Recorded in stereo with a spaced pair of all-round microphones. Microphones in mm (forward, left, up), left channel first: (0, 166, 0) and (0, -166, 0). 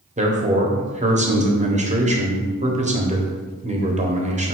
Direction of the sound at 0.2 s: 20° right (ahead or behind).